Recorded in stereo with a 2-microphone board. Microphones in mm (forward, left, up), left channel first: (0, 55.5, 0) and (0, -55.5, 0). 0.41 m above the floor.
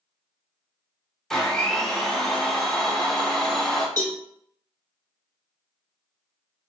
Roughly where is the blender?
Centre.